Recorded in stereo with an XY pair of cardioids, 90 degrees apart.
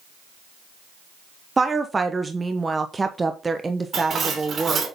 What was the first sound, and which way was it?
A woman speaking, 25° right.